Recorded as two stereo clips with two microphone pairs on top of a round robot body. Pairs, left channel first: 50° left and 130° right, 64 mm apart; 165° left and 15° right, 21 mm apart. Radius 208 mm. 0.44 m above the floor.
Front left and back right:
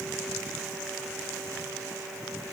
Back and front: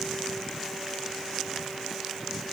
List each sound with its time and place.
Only background noise.